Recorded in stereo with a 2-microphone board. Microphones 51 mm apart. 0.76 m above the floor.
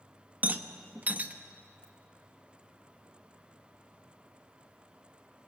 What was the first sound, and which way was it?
A rattle, 35° right (ahead or behind).